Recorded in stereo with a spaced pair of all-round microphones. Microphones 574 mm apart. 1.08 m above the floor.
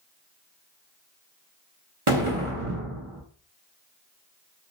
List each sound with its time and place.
2.1 s an explosion: 65° right (ahead or behind), 1.1 m